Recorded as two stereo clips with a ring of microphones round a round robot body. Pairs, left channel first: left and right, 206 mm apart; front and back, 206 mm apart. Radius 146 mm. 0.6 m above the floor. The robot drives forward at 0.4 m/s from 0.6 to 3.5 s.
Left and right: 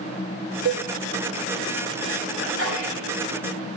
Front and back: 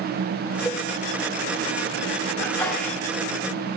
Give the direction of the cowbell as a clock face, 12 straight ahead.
3 o'clock.